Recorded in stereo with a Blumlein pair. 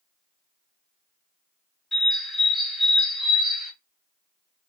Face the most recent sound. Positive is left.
turn(degrees=0)